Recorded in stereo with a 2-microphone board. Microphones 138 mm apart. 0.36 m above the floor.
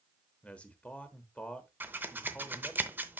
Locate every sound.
0.4 s a man speaking: 10° left (ahead or behind), 1.1 m
1.8 s scissors: 15° right (ahead or behind), 0.7 m